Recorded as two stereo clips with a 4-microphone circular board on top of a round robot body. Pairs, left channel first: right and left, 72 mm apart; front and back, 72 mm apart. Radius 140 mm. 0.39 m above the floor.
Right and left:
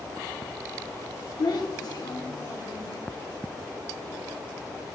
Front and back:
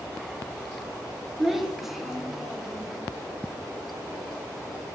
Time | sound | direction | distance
1.4 | a child speaking | 95° right | 1.3 m